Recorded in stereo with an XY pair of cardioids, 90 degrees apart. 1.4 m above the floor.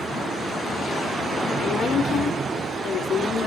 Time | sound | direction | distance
1.6 | a woman speaking | 65° left | 4.5 m